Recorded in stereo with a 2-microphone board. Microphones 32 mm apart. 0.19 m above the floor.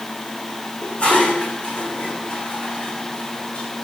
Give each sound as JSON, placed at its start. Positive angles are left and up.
{"t": 0.8, "sound": "dishes clattering", "side_deg": 40, "distance_m": 8.0}